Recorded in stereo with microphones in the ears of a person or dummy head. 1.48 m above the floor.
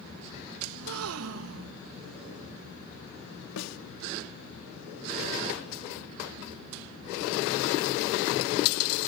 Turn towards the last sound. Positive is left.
turn(degrees=85)